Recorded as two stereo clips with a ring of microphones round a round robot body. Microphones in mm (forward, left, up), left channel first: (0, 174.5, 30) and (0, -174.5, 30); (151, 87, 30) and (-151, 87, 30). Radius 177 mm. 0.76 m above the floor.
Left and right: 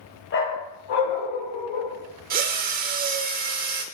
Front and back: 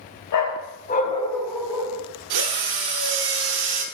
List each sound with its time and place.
0.3 s a dog barking: 30° left, 1.8 m; by 2.0 s 105° left, 2.5 m
2.3 s a drill: 155° right, 1.1 m